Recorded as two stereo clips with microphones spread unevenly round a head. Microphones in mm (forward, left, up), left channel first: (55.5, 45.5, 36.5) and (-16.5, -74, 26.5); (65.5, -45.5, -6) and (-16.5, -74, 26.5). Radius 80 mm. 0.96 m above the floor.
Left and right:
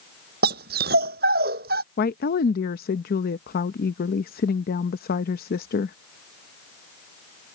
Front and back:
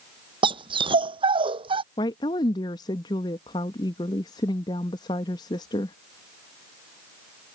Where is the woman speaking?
55° left.